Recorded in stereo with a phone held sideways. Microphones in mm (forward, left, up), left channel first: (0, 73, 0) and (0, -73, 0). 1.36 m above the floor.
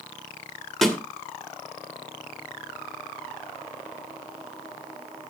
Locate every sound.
0.8 s a snare drum: centre (ahead or behind), 2.0 m